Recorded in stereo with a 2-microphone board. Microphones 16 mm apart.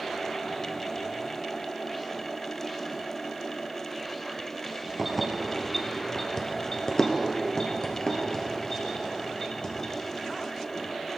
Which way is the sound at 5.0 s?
5° right (ahead or behind).